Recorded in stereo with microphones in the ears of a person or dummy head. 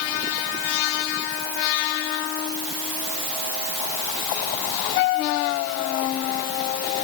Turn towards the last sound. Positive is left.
No sound to turn to.